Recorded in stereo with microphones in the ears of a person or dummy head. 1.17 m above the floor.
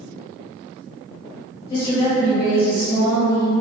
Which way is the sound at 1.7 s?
25° left (ahead or behind).